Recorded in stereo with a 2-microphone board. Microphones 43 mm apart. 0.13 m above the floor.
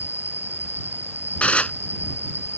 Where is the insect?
60° left (ahead or behind).